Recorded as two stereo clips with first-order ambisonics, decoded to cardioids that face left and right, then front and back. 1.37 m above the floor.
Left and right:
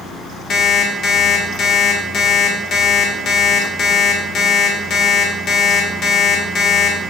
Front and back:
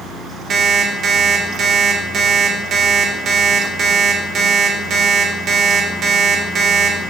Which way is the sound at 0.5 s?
130° left.